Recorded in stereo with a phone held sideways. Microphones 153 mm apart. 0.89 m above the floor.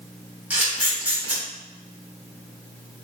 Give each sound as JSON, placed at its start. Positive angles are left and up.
{"t": 0.5, "sound": "a camera shutter", "side_deg": -10, "distance_m": 1.4}